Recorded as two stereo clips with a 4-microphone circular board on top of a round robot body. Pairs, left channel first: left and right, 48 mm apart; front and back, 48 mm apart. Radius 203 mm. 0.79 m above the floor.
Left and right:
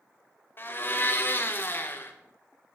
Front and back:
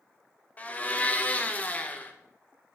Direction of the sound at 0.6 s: 55° left.